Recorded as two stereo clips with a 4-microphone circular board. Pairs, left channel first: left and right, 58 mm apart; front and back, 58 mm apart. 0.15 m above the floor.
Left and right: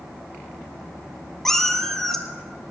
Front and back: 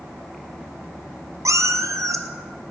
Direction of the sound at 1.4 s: 170° left.